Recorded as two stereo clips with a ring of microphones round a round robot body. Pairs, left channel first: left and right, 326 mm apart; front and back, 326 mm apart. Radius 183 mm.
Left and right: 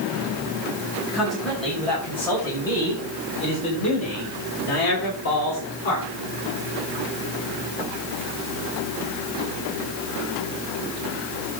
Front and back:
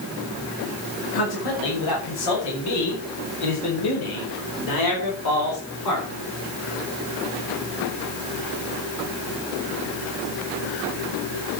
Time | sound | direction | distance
1.1 | a man speaking | straight ahead | 6 m